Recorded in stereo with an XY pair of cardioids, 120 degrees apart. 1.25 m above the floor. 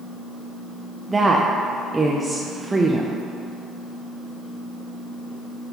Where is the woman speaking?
15° right, 0.5 m.